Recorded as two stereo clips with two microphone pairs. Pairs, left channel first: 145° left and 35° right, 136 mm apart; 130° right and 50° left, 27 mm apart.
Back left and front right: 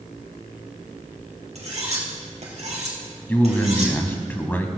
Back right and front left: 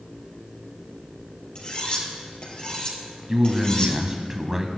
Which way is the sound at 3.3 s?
95° left.